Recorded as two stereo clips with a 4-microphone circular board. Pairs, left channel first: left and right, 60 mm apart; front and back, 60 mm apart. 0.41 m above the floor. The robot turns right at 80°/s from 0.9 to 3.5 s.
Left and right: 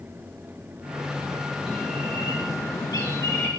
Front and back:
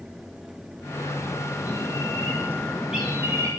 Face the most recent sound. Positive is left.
turn(degrees=145)